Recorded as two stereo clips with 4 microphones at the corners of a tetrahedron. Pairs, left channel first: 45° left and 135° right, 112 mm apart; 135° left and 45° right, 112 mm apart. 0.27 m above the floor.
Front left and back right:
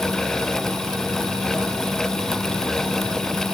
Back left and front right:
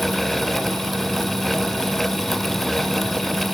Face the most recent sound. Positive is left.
No sound to turn to.